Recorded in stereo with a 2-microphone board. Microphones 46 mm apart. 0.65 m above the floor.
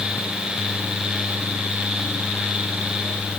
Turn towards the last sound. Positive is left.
No sound to turn to.